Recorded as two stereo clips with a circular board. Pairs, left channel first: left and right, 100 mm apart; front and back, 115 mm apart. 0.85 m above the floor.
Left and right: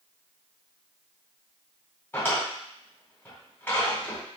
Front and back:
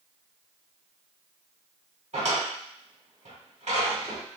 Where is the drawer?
160° left, 1.7 m.